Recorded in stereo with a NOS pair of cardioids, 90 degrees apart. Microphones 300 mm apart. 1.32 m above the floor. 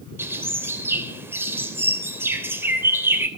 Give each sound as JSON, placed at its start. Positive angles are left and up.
{"t": 0.2, "sound": "a bird", "azimuth_deg": -10, "distance_m": 3.5}